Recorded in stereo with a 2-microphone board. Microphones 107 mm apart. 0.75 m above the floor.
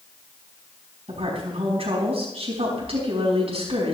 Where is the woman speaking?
65° right (ahead or behind), 5 m.